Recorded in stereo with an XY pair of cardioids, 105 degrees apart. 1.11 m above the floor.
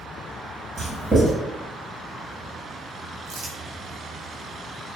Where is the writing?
25° right, 1.2 m.